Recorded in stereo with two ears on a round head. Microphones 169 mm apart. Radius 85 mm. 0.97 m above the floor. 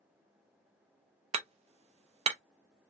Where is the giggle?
No giggle in this recording.